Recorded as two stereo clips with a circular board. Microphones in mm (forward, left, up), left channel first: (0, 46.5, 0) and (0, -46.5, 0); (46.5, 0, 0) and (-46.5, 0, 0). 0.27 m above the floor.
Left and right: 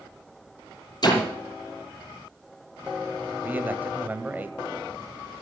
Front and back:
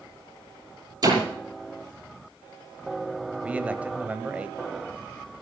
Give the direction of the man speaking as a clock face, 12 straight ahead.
4 o'clock.